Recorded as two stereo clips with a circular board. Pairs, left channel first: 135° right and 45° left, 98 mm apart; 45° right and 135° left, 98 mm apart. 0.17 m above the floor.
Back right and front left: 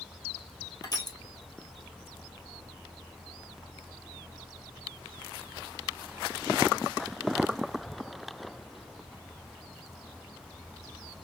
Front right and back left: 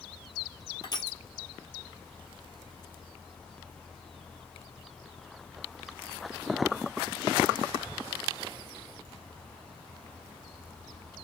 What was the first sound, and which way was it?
Crushing, 90° right.